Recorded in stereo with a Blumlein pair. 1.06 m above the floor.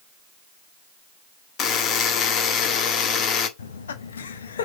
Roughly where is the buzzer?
Ahead left.